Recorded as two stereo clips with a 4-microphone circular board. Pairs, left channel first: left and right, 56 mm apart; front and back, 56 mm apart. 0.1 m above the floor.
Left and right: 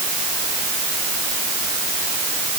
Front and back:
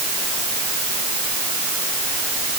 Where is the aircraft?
No aircraft in this recording.